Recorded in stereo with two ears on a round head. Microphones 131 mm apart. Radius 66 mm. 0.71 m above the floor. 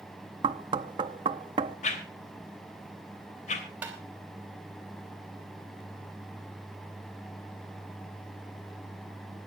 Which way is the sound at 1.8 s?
55° left (ahead or behind).